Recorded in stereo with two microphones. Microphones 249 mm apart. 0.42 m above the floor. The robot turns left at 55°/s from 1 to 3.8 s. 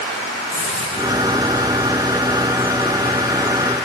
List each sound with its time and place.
0.5 s a hiss: 75° right (ahead or behind), 8.5 m; by 1.4 s 55° right (ahead or behind), 8.5 m